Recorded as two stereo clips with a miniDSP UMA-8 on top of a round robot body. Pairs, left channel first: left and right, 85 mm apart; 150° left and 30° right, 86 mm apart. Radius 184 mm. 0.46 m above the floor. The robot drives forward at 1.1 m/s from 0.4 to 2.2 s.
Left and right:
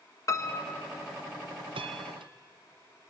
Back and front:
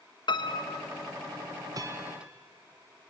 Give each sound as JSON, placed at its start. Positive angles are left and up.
{"t": 0.3, "sound": "a piano", "azimuth_deg": 135, "distance_m": 1.2}
{"t": 1.7, "sound": "a bell", "azimuth_deg": -75, "distance_m": 0.9}